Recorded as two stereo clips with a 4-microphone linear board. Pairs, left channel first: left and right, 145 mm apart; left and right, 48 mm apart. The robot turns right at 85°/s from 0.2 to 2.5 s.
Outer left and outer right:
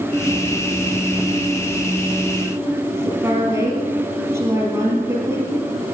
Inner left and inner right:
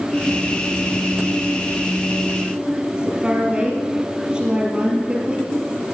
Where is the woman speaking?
20° right (ahead or behind), 4 m.